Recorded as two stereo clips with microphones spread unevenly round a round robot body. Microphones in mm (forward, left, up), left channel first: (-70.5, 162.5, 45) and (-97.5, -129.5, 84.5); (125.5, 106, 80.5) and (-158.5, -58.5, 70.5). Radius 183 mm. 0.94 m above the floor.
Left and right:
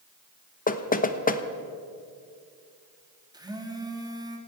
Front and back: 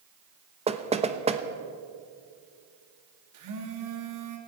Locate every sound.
0.7 s knocking: 140° left, 1.2 m
3.3 s a phone buzzing: 175° right, 2.5 m